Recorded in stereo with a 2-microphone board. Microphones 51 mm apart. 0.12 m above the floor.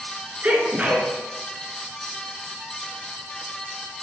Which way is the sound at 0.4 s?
30° right (ahead or behind).